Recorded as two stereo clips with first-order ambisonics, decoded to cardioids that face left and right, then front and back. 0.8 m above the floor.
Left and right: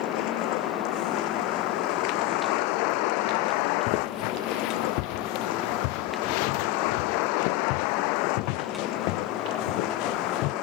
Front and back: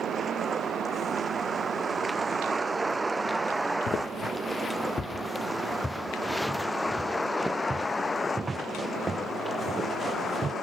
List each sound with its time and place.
0.0 s a vehicle: 110° left; by 10.6 s 65° left
3.9 s footsteps: 60° left; by 10.5 s 110° left